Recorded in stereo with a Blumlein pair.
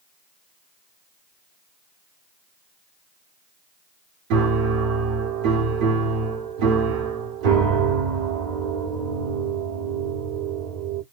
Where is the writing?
I don't hear writing.